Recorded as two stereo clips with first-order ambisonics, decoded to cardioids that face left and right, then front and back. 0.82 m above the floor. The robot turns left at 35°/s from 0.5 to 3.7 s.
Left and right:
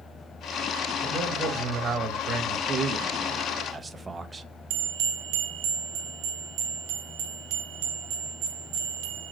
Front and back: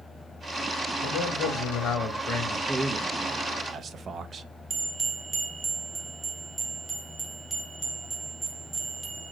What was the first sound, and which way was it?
A man speaking, 10° right.